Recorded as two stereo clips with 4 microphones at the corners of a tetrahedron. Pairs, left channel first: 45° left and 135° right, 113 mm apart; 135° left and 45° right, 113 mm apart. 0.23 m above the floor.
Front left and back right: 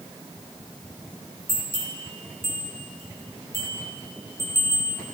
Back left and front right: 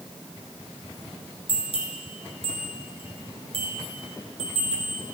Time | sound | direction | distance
1.5 | a bell | 110° left | 2.5 m